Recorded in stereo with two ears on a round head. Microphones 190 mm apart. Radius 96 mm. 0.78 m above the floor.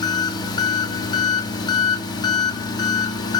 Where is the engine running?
20° left (ahead or behind), 0.8 m.